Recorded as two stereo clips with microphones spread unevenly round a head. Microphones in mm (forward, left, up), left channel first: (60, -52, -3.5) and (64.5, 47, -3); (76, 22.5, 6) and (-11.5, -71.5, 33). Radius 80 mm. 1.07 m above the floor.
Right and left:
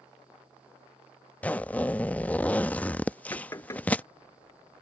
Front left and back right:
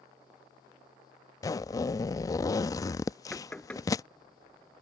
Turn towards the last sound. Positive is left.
turn(degrees=-35)